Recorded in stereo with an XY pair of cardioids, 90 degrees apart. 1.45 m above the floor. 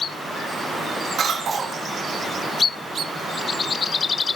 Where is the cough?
50° right, 2.5 m.